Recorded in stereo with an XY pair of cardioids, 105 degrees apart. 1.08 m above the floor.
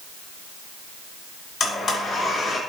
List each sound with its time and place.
1.6 s a blender: 55° left, 4 m